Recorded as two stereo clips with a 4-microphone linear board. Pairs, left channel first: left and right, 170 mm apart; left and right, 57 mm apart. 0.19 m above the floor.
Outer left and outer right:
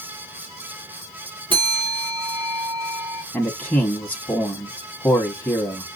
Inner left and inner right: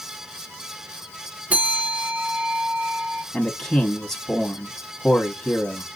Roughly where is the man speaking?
Centre.